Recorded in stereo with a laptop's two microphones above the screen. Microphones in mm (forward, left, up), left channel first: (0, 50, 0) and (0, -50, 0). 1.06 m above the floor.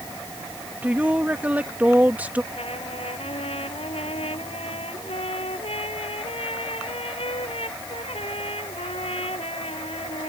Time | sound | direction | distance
0.8 | a woman speaking | 15° right (ahead or behind) | ?
2.5 | a trumpet | 80° left | ?